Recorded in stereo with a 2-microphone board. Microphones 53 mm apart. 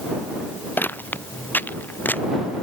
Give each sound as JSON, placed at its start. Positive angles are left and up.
{"t": 0.8, "sound": "footsteps", "side_deg": 40}